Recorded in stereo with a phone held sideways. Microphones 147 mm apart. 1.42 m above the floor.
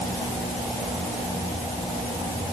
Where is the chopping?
No chopping in this recording.